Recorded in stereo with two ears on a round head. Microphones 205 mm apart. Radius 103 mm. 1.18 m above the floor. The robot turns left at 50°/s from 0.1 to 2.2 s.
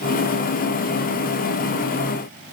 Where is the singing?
I don't hear singing.